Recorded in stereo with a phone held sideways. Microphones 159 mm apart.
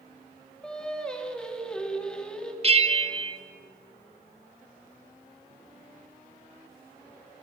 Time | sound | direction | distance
0.6 | singing | 5° left (ahead or behind) | 2.5 m
2.6 | a bell | 40° right (ahead or behind) | 1.2 m